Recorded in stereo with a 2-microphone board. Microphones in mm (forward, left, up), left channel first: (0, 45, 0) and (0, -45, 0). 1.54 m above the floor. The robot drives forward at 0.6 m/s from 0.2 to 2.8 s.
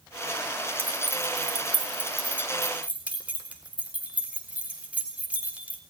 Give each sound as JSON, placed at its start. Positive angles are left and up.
{"t": 0.8, "sound": "keys jangling", "side_deg": -20, "distance_m": 2.5}